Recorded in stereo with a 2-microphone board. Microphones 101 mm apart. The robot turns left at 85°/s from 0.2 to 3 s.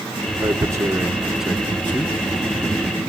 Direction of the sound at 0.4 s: 35° right (ahead or behind).